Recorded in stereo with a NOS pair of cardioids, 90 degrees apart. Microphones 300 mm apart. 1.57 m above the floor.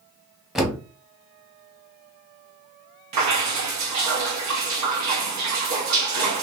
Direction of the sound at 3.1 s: 65° right.